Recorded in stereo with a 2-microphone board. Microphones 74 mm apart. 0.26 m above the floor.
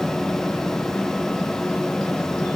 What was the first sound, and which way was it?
Only background noise.